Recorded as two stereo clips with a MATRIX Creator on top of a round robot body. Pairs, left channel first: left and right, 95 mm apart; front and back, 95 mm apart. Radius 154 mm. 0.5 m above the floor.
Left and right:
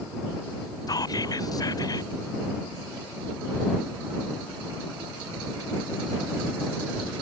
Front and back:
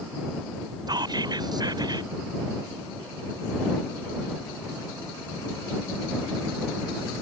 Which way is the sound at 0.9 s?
140° left.